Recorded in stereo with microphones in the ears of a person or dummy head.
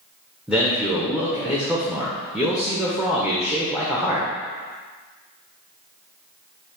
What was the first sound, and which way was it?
A man speaking, 5° right (ahead or behind).